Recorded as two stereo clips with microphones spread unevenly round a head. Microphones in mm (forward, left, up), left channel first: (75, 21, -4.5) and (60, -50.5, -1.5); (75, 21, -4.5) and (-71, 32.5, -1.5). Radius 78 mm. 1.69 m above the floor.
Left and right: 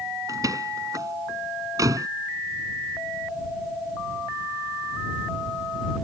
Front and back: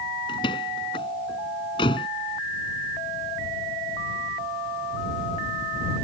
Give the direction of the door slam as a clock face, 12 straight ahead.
2 o'clock.